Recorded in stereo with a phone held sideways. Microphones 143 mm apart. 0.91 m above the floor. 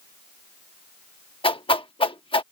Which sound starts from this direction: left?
A whoosh, at 1.4 s.